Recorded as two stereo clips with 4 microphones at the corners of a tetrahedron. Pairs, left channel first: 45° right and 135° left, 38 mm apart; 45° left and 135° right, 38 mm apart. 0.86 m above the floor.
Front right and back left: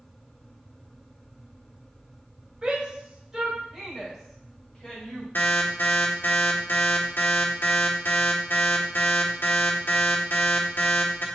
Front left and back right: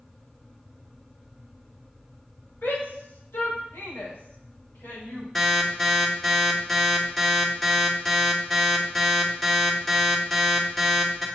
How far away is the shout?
About 3 m.